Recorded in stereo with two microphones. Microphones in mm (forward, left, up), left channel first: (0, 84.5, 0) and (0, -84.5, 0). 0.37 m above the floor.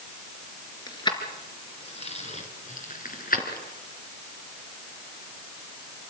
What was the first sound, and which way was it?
Keys jangling, 25° left (ahead or behind).